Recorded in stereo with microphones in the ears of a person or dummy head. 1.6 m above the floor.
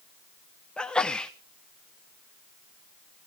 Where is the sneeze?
5° left (ahead or behind), 1.0 m.